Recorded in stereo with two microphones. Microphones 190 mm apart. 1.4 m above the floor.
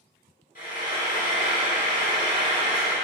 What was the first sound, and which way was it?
Frying, 45° left (ahead or behind).